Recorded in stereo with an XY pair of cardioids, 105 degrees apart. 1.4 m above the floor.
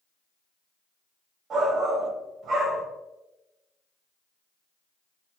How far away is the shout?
About 2 m.